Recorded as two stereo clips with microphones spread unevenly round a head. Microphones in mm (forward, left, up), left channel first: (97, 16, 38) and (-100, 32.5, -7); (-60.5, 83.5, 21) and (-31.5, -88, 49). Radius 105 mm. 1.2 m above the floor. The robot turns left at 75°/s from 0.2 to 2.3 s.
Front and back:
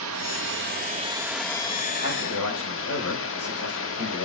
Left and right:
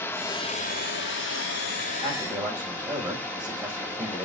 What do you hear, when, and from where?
0.0 s running water: 175° left, 1.4 m; by 4.3 s 20° left, 1.4 m
2.0 s a man speaking: 25° left, 5 m; by 4.3 s straight ahead, 5 m